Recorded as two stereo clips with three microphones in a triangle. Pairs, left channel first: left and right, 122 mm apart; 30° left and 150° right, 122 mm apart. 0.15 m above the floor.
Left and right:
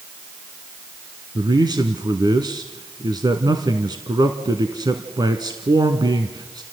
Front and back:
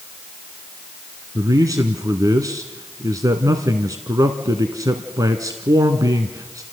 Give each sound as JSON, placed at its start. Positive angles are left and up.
{"t": 1.4, "sound": "a man speaking", "azimuth_deg": -110, "distance_m": 1.2}